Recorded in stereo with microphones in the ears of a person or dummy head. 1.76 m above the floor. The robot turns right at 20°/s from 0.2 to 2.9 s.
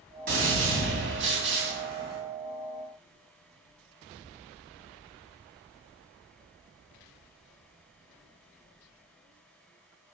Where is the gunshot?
110° right, 2.5 m; by 2.2 s 75° right, 2.5 m.